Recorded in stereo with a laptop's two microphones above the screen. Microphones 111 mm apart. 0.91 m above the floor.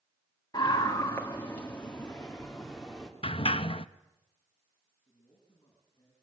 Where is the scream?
35° left (ahead or behind), 1.6 m; by 3.1 s 5° right (ahead or behind), 2.5 m.